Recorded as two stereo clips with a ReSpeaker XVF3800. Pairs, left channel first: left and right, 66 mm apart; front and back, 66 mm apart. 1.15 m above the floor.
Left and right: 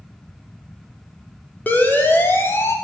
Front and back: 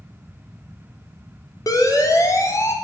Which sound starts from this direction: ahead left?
A siren, at 1.7 s.